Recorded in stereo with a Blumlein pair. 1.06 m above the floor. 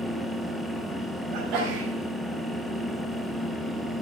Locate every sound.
0.0 s a fan: straight ahead, 1.3 m
1.3 s a sneeze: 40° right, 5 m